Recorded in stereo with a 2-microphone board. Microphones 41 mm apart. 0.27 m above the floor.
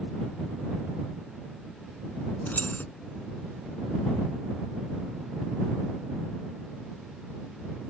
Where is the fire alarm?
I don't hear a fire alarm.